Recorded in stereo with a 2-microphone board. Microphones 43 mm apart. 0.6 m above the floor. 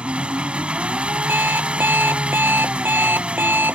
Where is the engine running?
25° right (ahead or behind).